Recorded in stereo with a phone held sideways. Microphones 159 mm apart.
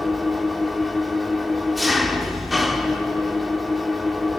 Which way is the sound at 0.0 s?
Centre (ahead or behind).